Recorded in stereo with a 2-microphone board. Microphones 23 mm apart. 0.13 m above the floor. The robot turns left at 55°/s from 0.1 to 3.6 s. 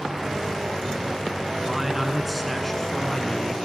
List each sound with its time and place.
1.6 s a man speaking: 20° right (ahead or behind), 1.5 m; by 3.5 s 25° left (ahead or behind), 1.5 m